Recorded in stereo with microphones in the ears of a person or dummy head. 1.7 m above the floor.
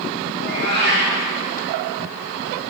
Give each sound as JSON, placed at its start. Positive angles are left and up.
{"t": 0.3, "sound": "a cat meowing", "side_deg": -55, "distance_m": 3.5}